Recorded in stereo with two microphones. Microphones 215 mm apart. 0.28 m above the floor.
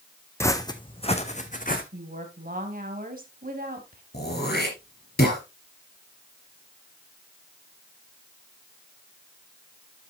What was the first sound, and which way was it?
Footsteps, 15° left (ahead or behind).